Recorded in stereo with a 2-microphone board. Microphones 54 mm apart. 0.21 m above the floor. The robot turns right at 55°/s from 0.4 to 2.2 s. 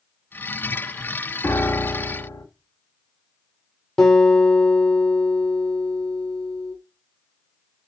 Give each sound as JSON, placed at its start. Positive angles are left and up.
{"t": 1.4, "sound": "a piano", "azimuth_deg": 50, "distance_m": 1.7}
{"t": 4.0, "sound": "a guitar", "side_deg": 15, "distance_m": 4.5}